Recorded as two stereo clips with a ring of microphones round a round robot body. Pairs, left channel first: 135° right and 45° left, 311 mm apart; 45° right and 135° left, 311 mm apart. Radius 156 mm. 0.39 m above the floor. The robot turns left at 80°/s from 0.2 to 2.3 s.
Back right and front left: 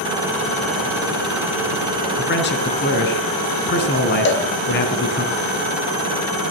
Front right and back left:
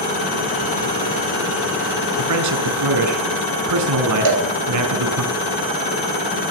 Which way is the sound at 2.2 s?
175° left.